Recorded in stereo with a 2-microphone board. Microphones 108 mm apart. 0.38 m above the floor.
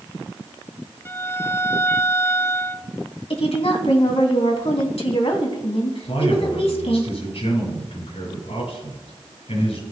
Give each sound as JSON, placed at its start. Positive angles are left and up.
{"t": 1.1, "sound": "a violin", "side_deg": 25, "distance_m": 0.7}
{"t": 3.3, "sound": "a woman speaking", "side_deg": 65, "distance_m": 2.5}
{"t": 6.0, "sound": "a man speaking", "side_deg": 75, "distance_m": 7.0}